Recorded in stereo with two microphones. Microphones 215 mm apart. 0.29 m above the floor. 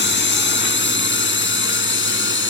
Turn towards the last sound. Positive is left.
turn(degrees=60)  # may be behind; listen again after turning